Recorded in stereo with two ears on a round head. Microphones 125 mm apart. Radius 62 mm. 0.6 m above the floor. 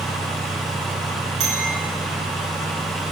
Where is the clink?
50° right (ahead or behind), 5 m.